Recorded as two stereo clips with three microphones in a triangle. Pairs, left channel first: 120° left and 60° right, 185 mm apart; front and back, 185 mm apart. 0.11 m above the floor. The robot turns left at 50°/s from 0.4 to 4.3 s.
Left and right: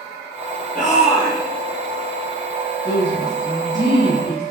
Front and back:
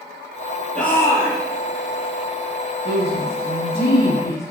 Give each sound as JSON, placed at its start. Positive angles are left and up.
{"t": 0.8, "sound": "a shout", "azimuth_deg": 85, "distance_m": 3.0}
{"t": 2.9, "sound": "a woman speaking", "azimuth_deg": 55, "distance_m": 3.5}